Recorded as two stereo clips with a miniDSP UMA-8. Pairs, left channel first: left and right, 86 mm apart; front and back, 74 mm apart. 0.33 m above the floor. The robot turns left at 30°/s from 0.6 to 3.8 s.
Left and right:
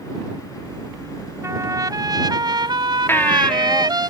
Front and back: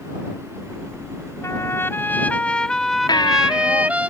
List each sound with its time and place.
1.4 s a trumpet: 40° right; by 4.1 s 110° right
3.1 s a baby crying: 25° left; by 3.9 s 5° left